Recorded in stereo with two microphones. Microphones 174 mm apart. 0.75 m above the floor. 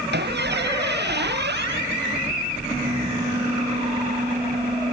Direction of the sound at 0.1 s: 80° right.